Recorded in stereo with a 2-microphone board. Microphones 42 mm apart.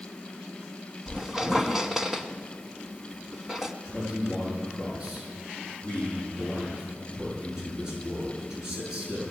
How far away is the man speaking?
About 9 m.